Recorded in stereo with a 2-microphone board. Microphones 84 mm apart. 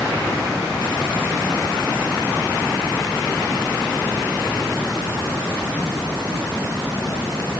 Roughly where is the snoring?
I don't hear snoring.